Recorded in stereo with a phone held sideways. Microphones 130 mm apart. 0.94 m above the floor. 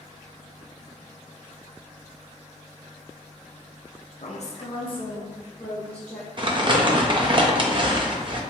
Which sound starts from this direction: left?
A woman speaking, at 4.2 s.